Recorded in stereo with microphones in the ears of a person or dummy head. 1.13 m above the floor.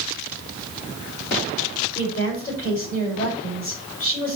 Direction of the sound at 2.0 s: 40° left (ahead or behind).